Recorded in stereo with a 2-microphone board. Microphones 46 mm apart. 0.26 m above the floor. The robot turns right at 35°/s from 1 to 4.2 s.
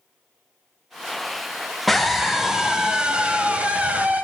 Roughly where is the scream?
Behind.